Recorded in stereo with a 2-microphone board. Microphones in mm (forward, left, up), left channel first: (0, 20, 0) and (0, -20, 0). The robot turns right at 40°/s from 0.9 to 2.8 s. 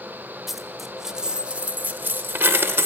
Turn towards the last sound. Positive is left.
turn(degrees=-95)